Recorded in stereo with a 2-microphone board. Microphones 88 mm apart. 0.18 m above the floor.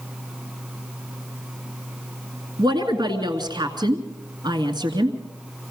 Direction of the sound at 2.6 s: 55° right (ahead or behind).